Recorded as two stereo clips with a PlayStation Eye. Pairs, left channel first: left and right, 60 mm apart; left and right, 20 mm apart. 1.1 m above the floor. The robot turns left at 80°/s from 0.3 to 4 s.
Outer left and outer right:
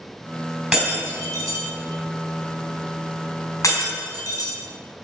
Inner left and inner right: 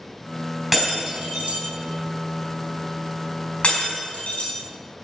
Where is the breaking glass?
5° right (ahead or behind), 4.5 m; by 4.5 s 85° left, 4.5 m.